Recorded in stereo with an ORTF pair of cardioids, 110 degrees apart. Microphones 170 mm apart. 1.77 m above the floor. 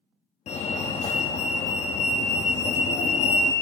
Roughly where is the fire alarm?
Ahead left.